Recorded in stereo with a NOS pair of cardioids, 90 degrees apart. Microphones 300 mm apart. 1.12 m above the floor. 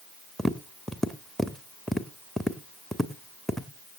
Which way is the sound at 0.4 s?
Straight ahead.